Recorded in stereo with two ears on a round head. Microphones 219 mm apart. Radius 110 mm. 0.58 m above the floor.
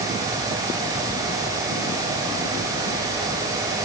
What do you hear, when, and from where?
Only background noise.